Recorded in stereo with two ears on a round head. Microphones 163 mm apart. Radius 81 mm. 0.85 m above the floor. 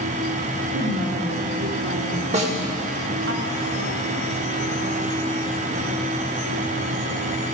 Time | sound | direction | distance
0.7 | a woman speaking | 65° right (ahead or behind) | 2 m
2.3 | a snare drum | 40° right (ahead or behind) | 1.6 m